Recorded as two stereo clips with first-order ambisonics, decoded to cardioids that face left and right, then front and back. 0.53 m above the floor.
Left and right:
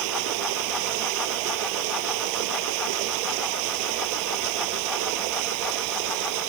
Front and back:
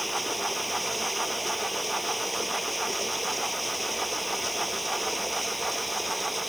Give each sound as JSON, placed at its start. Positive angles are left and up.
{"t": 0.0, "sound": "running water", "azimuth_deg": -90}